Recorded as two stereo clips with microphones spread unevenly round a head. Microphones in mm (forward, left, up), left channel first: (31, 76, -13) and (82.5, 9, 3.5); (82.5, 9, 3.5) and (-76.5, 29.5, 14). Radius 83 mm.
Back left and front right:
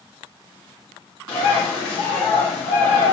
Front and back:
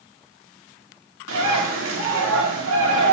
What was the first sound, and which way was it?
A bird, 175° right.